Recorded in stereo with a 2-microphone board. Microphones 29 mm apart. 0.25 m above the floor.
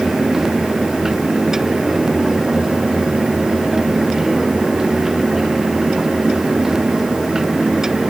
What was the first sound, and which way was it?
Only background noise.